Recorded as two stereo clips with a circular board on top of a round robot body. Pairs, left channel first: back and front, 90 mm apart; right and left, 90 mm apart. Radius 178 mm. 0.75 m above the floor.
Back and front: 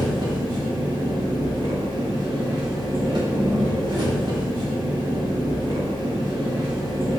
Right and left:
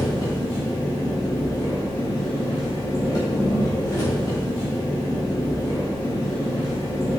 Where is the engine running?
40° right, 0.8 m.